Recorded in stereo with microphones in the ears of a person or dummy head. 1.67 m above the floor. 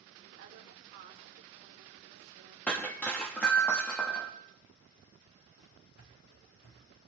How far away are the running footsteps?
About 3 m.